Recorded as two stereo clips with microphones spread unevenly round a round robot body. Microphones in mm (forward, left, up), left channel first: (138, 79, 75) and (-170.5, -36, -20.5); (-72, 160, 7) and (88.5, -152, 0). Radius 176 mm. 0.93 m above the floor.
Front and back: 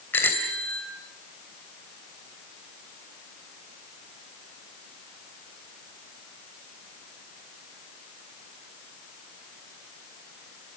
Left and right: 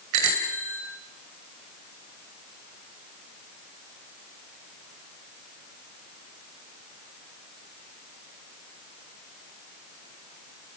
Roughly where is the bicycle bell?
Ahead right.